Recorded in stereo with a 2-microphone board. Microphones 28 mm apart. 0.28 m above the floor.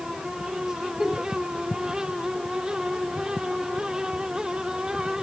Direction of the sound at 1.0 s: 15° right (ahead or behind).